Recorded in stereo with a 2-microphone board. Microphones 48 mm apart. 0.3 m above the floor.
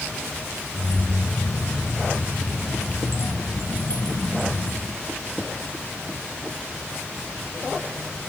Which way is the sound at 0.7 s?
70° left (ahead or behind).